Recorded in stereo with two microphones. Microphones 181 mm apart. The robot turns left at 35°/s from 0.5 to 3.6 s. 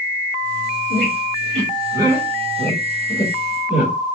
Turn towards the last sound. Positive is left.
turn(degrees=35)  # may be behind; listen again after turning